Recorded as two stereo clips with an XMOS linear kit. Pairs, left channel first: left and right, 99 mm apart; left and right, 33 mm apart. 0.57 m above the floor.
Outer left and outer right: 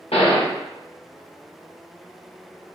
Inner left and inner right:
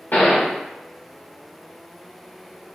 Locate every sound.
0.1 s a gunshot: 75° left (ahead or behind), 0.5 m